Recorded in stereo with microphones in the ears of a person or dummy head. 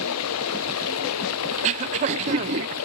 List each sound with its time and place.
0.0 s running water: 90° left
1.5 s throat clearing: 35° right (ahead or behind)